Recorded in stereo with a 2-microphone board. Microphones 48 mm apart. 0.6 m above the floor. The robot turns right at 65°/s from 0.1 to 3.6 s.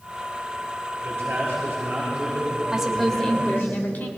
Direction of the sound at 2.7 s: 15° right.